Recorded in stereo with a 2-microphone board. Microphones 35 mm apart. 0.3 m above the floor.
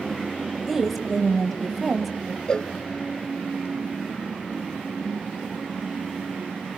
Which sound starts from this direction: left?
A cowbell, at 2.5 s.